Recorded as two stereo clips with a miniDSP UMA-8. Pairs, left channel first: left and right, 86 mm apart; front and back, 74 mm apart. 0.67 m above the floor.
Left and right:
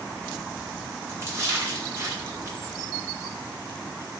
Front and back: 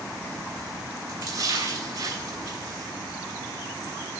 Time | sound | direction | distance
1.1 | a splash | 150° right | 6.5 m